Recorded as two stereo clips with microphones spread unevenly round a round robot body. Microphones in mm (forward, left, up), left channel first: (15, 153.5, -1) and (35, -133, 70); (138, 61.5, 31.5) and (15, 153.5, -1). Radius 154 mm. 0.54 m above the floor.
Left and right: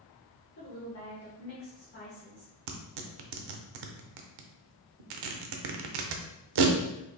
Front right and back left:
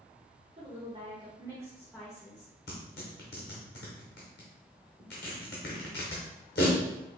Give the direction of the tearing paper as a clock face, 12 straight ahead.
3 o'clock.